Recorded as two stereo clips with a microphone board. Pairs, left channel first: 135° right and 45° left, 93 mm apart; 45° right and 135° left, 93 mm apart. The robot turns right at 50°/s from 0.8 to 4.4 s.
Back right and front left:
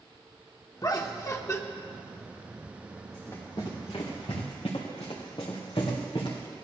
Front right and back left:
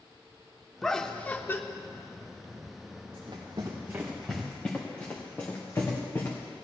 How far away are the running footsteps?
About 3 m.